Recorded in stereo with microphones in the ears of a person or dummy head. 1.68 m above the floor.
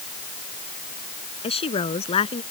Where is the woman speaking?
35° left (ahead or behind).